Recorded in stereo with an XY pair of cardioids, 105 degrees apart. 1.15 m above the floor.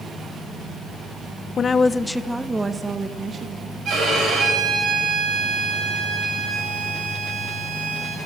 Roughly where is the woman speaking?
Ahead left.